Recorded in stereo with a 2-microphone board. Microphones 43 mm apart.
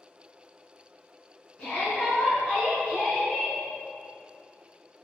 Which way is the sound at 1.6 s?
15° left (ahead or behind).